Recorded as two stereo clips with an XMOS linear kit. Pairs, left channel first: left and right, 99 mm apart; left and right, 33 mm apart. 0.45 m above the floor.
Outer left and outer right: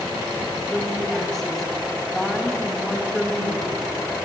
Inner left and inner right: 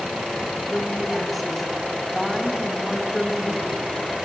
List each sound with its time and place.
0.7 s a woman speaking: 5° left (ahead or behind), 3 m